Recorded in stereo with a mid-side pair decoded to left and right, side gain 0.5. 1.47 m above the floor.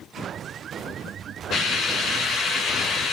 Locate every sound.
1.5 s a hiss: 60° left, 3.5 m